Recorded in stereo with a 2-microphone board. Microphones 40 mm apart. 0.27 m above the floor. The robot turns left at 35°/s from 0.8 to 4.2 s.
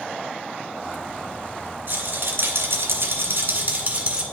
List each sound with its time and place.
1.9 s a rattle: 70° right, 1.7 m; by 4.2 s 155° right, 1.7 m